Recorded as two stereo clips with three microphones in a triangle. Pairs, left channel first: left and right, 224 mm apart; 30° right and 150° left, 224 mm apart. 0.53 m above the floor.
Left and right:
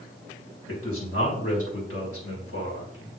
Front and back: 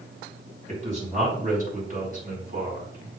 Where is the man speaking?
90° left, 5 m; by 3.1 s 105° left, 5.5 m.